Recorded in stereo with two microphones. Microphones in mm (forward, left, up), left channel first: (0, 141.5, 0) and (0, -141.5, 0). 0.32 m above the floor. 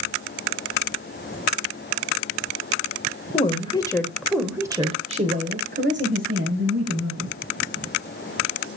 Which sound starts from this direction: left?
A woman speaking, at 3.3 s.